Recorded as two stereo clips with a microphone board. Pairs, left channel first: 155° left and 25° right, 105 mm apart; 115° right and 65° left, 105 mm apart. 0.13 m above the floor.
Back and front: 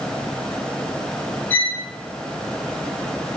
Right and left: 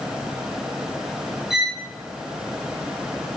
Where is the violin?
145° left, 0.5 m.